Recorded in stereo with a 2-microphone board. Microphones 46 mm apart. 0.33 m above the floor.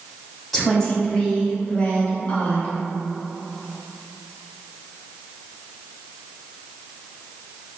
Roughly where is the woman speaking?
Centre.